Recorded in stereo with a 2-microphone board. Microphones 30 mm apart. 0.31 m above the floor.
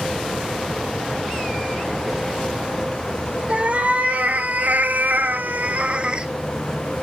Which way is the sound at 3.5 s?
50° right (ahead or behind).